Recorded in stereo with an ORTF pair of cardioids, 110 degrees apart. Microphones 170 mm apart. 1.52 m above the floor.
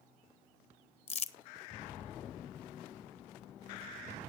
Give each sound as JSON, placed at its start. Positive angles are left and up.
{"t": 1.1, "sound": "crumpling", "azimuth_deg": 40, "distance_m": 0.9}